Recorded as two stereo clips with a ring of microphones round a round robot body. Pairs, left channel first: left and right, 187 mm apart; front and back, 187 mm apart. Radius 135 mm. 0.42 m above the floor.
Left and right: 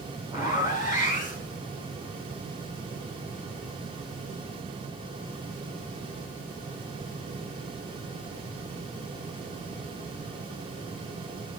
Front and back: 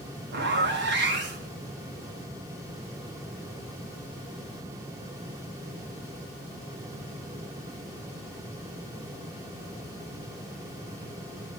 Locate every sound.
0.3 s a zipper: 165° right, 3 m